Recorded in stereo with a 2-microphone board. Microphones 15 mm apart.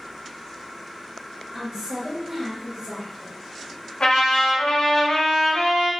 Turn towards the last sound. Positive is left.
turn(degrees=60)  # may be behind; listen again after turning